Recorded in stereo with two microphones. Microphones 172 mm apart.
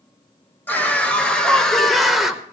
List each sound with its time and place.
0.7 s a scream: 10° left (ahead or behind), 1.8 m; by 2.4 s 5° right (ahead or behind), 1.2 m